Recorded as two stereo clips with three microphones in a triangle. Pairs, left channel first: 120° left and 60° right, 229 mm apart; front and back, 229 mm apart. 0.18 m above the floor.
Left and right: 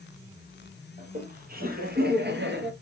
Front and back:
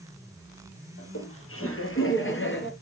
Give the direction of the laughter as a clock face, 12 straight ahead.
12 o'clock.